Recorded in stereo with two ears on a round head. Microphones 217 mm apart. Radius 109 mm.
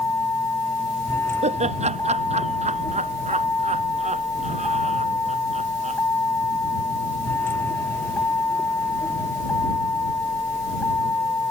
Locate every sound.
0.0 s a vehicle: 10° left (ahead or behind)
1.4 s laughter: 30° right (ahead or behind)